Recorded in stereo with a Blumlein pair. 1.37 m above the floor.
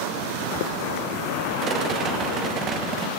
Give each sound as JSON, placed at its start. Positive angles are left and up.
{"t": 1.6, "sound": "a rattle", "azimuth_deg": -30, "distance_m": 1.3}